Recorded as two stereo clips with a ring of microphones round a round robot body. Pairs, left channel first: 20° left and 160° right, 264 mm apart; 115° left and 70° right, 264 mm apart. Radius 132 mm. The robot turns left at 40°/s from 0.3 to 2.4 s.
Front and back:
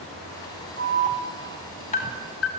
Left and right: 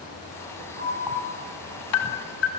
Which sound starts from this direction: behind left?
An alarm, at 0.8 s.